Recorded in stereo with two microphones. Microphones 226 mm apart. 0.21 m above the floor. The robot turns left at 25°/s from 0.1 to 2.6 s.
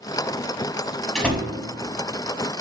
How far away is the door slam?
About 0.8 m.